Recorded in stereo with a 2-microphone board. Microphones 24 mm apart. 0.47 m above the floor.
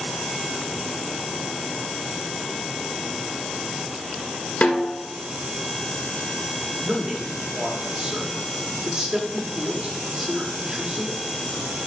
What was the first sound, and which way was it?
A snare drum, 65° left (ahead or behind).